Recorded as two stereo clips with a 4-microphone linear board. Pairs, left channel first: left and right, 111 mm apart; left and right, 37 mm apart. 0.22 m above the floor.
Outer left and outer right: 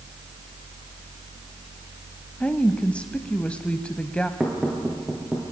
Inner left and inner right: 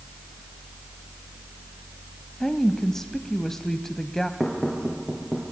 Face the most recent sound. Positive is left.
turn(degrees=-5)  # may be behind; listen again after turning